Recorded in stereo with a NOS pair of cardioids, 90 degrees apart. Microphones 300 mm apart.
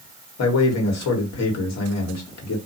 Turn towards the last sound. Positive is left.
turn(degrees=60)